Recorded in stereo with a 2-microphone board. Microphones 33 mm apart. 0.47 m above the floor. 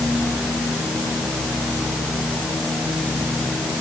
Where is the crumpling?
I don't hear crumpling.